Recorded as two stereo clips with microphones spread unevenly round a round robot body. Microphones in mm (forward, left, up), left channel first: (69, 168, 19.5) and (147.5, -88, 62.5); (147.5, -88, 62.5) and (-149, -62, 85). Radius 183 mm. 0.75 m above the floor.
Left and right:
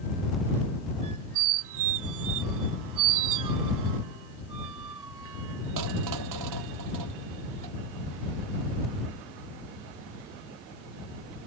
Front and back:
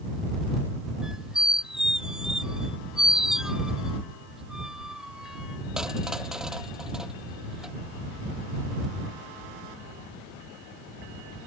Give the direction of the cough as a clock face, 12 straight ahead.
No cough in this recording.